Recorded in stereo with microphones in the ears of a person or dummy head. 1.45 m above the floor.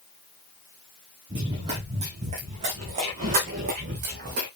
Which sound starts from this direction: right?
Running footsteps, at 1.3 s.